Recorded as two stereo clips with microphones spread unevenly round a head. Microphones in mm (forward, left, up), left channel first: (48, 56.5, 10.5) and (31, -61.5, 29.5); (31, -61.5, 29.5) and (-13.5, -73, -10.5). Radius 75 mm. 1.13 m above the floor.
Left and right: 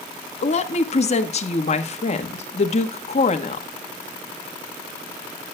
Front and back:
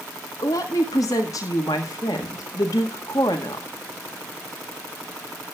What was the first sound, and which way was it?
A woman speaking, 50° left.